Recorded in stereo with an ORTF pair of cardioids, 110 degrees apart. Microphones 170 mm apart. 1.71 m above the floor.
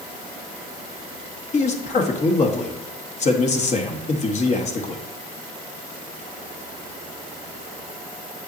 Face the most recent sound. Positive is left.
turn(degrees=40)